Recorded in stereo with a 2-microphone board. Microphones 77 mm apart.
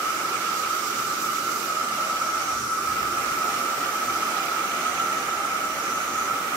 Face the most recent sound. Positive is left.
turn(degrees=-20)  # may be behind; listen again after turning